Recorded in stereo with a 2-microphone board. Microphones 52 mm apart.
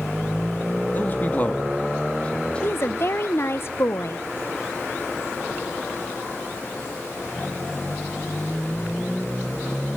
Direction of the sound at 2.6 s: 50° left (ahead or behind).